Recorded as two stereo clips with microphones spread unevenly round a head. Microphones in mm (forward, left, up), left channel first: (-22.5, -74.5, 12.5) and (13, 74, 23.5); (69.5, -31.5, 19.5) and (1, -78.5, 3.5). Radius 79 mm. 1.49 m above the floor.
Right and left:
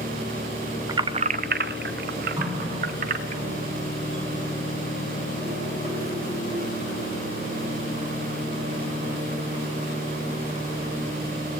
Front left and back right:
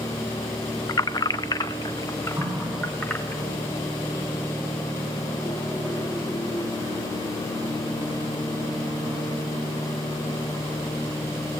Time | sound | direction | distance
0.9 | keys jangling | 15° left | 0.5 m
2.4 | a running tap | 145° left | 8 m